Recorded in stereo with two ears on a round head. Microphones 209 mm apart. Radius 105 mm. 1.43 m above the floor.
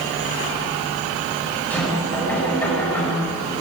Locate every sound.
1.7 s knocking: 10° left (ahead or behind), 8 m